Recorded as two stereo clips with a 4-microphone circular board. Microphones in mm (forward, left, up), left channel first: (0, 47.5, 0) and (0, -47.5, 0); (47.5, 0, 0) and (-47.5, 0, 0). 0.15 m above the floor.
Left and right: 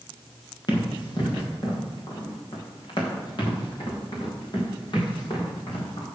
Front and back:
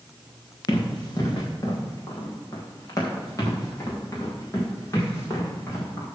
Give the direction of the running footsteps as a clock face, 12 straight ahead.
10 o'clock.